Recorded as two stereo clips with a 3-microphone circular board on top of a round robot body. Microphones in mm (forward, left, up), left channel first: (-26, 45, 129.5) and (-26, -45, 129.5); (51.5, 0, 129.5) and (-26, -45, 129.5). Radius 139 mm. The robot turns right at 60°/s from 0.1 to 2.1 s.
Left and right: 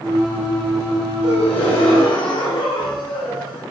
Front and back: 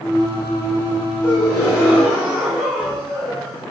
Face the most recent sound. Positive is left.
turn(degrees=120)